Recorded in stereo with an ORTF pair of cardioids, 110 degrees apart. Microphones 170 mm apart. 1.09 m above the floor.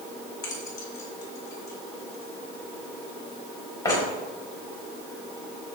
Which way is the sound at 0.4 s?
20° left.